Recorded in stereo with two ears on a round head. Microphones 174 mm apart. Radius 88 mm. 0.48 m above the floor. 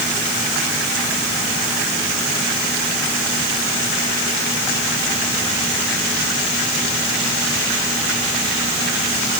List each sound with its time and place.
Only background noise.